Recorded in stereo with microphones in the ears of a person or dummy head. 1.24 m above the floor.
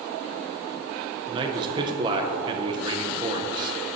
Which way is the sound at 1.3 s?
20° right (ahead or behind).